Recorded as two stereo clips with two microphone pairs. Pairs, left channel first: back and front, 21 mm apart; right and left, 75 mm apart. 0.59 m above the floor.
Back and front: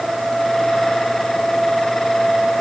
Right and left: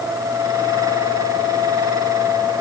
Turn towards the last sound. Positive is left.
No sound to turn to.